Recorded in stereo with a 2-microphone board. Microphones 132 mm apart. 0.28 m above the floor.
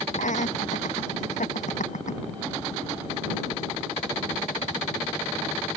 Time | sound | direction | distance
0.1 | laughter | 70° left (ahead or behind) | ?